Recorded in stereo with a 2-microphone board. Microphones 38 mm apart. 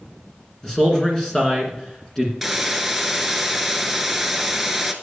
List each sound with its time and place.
0.6 s a man speaking: 15° left (ahead or behind), 1.9 m
2.4 s a hiss: 5° right (ahead or behind), 0.9 m